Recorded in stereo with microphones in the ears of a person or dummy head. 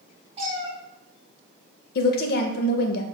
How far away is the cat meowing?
About 1.1 m.